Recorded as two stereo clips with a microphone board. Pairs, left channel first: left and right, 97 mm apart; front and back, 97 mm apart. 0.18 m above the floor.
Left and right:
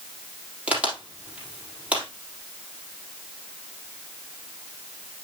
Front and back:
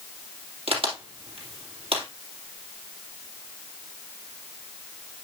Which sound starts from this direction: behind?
A crack, at 0.7 s.